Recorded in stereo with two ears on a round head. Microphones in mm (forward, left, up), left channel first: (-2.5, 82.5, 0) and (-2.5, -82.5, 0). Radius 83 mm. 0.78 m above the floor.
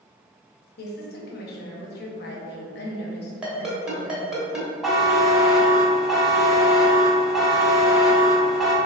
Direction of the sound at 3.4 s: 5° right (ahead or behind).